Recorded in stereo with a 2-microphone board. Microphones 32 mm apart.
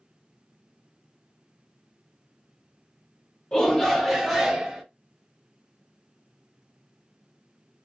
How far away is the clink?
I don't hear a clink.